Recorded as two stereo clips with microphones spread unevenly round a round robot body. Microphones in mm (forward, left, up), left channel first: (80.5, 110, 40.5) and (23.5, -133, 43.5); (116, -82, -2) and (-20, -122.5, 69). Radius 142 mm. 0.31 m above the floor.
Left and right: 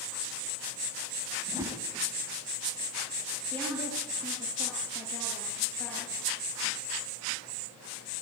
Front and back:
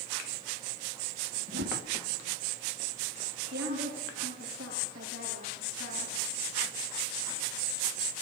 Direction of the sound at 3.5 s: 160° left.